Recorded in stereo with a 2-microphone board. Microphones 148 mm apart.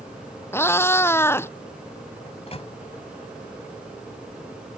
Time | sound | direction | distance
0.5 | a cat meowing | 15° left (ahead or behind) | ?
2.3 | a microwave | 45° left (ahead or behind) | ?